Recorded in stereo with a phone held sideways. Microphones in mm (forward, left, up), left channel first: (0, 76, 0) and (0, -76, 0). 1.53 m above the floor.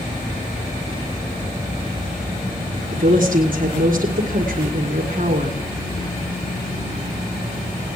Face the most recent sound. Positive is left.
turn(degrees=-60)  # may be behind; listen again after turning